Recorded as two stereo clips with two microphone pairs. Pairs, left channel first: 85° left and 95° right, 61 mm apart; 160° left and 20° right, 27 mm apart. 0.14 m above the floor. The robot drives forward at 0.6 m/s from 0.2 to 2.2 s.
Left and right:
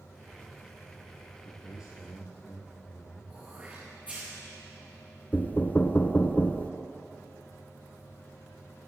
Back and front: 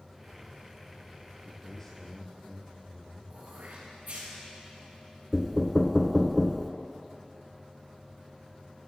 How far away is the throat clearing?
About 5 m.